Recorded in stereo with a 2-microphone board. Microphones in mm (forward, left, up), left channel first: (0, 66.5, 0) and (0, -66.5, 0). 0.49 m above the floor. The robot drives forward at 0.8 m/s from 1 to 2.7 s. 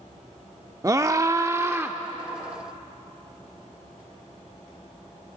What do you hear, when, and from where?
0.8 s a scream: 25° right (ahead or behind), 0.7 m; by 2.0 s 15° right (ahead or behind), 0.9 m